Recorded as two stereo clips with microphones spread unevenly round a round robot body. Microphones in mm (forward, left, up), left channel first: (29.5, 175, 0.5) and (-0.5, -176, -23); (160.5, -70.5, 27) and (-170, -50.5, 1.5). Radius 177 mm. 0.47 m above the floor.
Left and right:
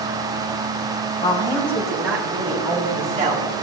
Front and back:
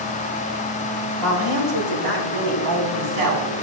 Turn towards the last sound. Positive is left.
turn(degrees=-160)